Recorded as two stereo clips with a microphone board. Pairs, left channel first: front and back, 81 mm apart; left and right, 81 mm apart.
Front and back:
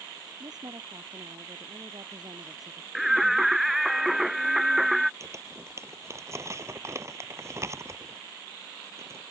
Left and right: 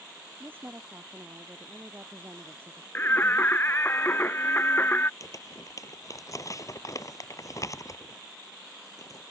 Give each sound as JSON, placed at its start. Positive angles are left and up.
{"t": 0.4, "sound": "a woman speaking", "azimuth_deg": -155}
{"t": 3.0, "sound": "singing", "azimuth_deg": 100}
{"t": 5.2, "sound": "crumpling", "azimuth_deg": 130}